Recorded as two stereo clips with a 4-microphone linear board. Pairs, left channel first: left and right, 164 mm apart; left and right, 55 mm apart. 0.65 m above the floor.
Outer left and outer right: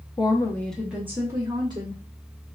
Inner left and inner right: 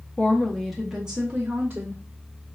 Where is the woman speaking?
30° left (ahead or behind), 0.5 m; by 2.0 s 30° right (ahead or behind), 1.1 m.